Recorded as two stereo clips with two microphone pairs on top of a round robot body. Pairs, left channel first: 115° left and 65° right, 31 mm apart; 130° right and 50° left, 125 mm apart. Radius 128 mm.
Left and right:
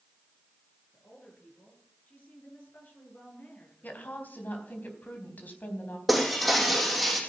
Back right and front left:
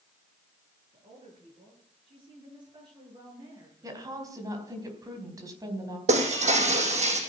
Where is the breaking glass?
25° left, 3.5 m.